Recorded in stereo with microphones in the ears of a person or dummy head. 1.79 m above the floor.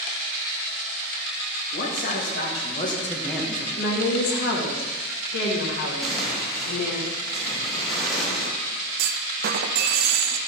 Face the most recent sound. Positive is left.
turn(degrees=-60)  # may be behind; listen again after turning